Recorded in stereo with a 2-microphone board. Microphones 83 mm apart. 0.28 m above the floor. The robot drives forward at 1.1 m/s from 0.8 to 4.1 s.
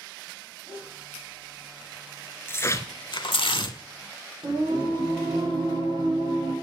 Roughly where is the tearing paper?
Left.